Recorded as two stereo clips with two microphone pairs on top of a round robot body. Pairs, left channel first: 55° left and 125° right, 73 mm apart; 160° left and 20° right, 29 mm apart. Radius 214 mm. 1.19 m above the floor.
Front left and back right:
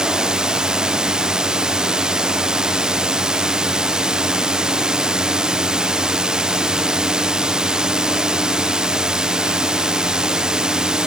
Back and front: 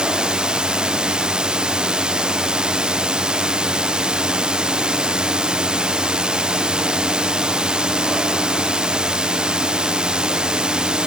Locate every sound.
0.0 s a drone: 45° right